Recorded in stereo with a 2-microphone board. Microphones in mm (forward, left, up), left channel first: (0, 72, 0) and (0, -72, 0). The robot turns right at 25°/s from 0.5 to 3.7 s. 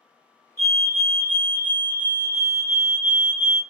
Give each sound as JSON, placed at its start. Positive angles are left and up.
{"t": 0.6, "sound": "a fire alarm", "azimuth_deg": -55, "distance_m": 2.0}